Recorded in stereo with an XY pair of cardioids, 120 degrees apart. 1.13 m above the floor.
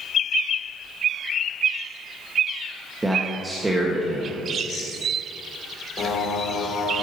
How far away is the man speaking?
About 1.4 m.